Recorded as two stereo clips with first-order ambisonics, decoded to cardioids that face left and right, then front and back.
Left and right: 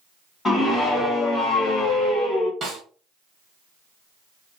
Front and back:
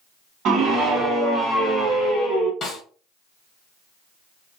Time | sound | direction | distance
0.5 | a scream | 155° left | 1.2 m
2.6 | a snare drum | 40° right | 1.0 m